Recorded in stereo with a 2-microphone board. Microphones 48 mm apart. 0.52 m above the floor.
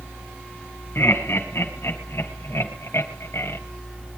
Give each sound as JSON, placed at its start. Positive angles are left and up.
{"t": 0.9, "sound": "laughter", "side_deg": 60, "distance_m": 4.0}